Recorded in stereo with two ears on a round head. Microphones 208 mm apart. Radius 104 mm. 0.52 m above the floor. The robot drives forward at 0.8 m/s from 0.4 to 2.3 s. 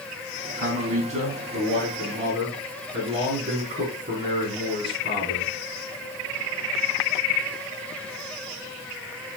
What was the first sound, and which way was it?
A man speaking, 35° right (ahead or behind).